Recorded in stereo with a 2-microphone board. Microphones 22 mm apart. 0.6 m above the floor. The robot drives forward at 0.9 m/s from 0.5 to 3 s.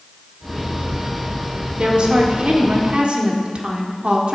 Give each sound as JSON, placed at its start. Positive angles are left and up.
{"t": 1.8, "sound": "a woman speaking", "side_deg": -45, "distance_m": 2.0}